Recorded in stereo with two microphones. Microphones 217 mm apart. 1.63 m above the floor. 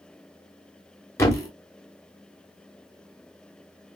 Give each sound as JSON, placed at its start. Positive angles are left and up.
{"t": 1.2, "sound": "a thud", "side_deg": 15, "distance_m": 1.3}